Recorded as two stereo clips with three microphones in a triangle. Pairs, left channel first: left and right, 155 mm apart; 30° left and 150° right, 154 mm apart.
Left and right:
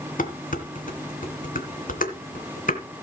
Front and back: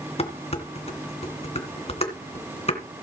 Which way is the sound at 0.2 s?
75° left.